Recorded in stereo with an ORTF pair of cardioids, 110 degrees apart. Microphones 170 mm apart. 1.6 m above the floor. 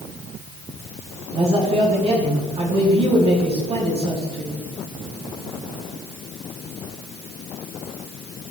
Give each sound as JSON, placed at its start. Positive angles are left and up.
{"t": 1.3, "sound": "a man speaking", "azimuth_deg": -35, "distance_m": 4.5}